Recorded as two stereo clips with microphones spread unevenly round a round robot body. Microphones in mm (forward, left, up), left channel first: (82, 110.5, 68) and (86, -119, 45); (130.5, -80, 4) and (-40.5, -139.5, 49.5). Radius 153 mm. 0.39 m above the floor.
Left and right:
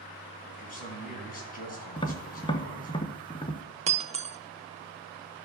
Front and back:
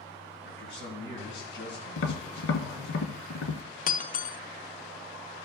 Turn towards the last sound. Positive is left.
turn(degrees=-25)